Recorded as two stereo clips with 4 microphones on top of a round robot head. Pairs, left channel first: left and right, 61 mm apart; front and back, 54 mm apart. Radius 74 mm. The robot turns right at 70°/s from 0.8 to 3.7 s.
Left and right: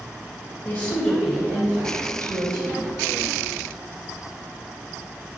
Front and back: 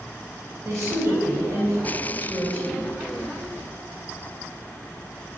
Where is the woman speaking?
165° left, 3.5 m; by 2.8 s 55° right, 3.5 m.